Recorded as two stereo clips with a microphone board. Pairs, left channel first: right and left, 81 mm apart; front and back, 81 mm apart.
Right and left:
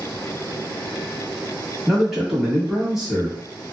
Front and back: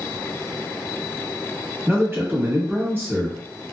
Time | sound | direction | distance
1.9 | a man speaking | 170° left | 1.1 m